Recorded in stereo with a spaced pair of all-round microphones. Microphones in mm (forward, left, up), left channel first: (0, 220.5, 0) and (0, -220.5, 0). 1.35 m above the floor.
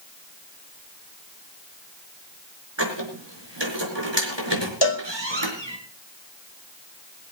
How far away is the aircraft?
No aircraft in this recording.